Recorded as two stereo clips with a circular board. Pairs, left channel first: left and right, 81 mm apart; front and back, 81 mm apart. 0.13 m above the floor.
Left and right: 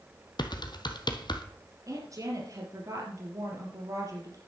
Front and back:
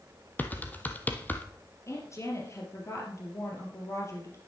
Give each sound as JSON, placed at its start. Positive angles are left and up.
{"t": 0.4, "sound": "typing on a keyboard", "azimuth_deg": 65, "distance_m": 1.3}
{"t": 1.9, "sound": "a woman speaking", "azimuth_deg": -50, "distance_m": 3.5}